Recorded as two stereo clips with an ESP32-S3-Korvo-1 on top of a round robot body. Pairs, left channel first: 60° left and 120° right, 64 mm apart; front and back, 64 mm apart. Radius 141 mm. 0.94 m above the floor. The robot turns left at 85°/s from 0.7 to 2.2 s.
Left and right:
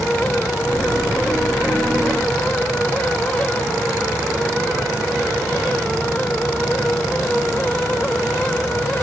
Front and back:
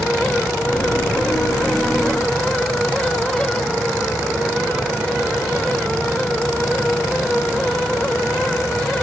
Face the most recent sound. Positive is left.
No sound to turn to.